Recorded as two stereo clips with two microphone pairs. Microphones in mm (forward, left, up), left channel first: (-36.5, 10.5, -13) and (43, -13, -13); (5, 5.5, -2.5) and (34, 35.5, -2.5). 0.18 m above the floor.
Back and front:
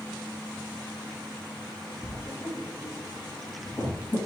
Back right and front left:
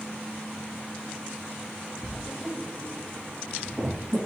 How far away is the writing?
About 1.5 m.